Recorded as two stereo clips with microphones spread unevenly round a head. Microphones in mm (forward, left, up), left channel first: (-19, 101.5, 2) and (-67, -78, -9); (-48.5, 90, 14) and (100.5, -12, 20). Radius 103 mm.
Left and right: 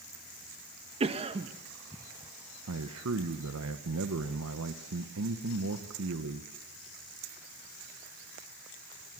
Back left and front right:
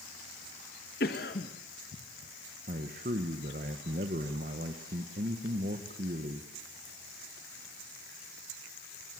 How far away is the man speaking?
About 1.5 m.